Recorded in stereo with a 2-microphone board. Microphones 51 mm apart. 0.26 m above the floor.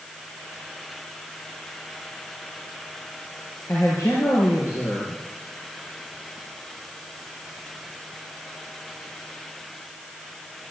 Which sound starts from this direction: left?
A man speaking, at 3.7 s.